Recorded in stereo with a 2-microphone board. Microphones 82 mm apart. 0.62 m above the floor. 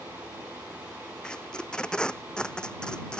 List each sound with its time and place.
1.2 s tape being pulled: 10° left (ahead or behind)